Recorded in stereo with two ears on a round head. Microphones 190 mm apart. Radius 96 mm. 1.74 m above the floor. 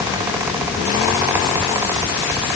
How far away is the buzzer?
No buzzer in this recording.